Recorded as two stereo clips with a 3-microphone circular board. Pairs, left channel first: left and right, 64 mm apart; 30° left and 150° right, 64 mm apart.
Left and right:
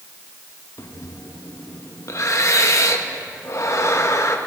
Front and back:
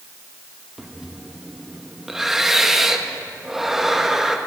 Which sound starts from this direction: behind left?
Breathing, at 0.8 s.